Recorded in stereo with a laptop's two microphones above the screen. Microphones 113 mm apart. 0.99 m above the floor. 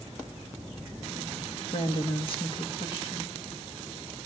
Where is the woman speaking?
45° left (ahead or behind), 1.6 m.